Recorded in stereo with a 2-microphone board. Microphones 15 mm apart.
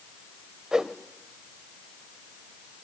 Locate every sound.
0.7 s a whoosh: 45° right (ahead or behind), 1.2 m